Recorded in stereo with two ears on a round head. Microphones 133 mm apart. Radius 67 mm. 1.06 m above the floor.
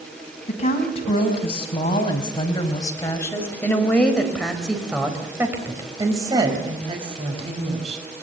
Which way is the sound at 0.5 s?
45° left (ahead or behind).